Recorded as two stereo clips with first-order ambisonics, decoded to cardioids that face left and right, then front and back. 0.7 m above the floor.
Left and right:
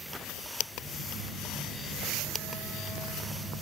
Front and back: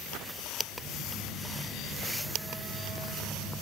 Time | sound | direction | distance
0.7 | a phone buzzing | 170° left | 2.5 m